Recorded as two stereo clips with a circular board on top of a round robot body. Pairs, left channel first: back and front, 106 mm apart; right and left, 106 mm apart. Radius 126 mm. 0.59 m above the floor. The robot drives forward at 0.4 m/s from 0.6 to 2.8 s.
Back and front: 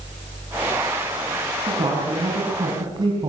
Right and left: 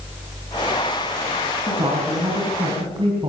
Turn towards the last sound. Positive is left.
turn(degrees=45)